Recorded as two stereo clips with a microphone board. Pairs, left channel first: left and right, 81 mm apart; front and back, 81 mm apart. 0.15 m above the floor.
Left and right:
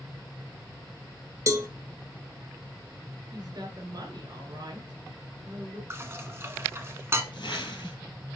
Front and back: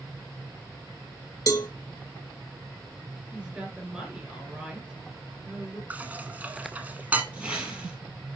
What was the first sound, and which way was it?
A cowbell, 45° right.